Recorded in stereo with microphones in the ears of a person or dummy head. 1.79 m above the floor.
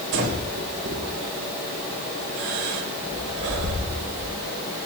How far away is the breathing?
About 3.5 m.